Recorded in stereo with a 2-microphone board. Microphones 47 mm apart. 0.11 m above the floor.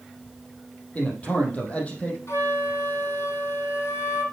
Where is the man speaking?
35° left (ahead or behind), 4 m.